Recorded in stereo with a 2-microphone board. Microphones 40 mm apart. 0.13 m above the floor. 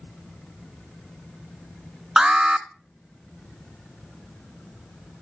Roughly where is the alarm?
Centre.